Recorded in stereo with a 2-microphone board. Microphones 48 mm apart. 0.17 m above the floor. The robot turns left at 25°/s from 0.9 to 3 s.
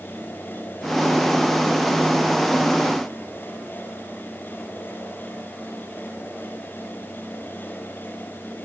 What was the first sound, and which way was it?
Only background noise.